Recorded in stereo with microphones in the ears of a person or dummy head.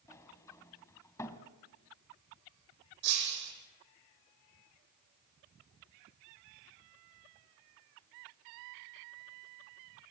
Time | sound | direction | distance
0.1 | a sliding door | 15° left (ahead or behind) | 2 m
3.0 | breaking glass | 60° right (ahead or behind) | 10 m